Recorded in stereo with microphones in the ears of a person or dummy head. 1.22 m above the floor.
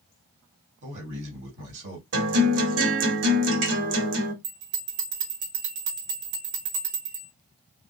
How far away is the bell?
About 1.3 m.